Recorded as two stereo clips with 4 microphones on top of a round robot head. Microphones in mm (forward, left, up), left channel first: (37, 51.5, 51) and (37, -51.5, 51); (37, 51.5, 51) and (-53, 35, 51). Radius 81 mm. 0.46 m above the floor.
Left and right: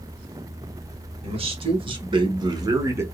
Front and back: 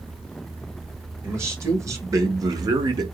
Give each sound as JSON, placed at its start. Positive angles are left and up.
{"t": 1.2, "sound": "a man speaking", "azimuth_deg": -110, "distance_m": 1.7}